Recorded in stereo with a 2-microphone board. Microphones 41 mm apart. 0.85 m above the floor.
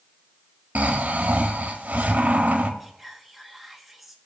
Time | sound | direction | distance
0.8 | snoring | 40° right (ahead or behind) | 1.3 m
2.8 | whispering | centre (ahead or behind) | 1.4 m